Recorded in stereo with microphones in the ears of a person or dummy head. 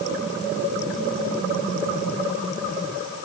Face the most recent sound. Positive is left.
No sound to turn to.